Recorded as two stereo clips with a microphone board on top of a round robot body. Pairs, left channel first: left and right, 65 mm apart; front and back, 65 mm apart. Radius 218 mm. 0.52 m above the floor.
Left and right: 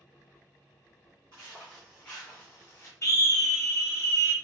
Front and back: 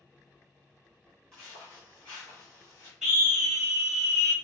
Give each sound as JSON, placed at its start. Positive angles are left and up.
{"t": 1.3, "sound": "footsteps", "azimuth_deg": -75, "distance_m": 0.5}
{"t": 3.0, "sound": "a scream", "azimuth_deg": 100, "distance_m": 1.4}